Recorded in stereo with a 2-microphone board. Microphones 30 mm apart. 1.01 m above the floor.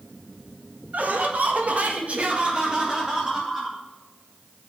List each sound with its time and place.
0.9 s laughter: 60° right (ahead or behind), 1.7 m; by 3.8 s 20° right (ahead or behind), 2.5 m